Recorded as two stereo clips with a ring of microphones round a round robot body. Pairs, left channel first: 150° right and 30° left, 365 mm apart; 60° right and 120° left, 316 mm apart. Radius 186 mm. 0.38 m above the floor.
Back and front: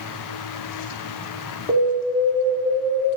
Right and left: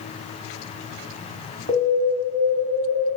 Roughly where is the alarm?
Behind left.